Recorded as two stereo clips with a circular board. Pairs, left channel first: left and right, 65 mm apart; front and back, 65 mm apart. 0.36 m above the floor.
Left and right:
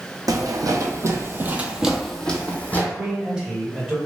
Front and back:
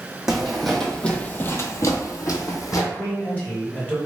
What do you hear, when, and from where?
0.3 s footsteps: 95° right, 0.8 m; by 2.8 s 30° left, 0.8 m
2.9 s a man speaking: 25° right, 1.0 m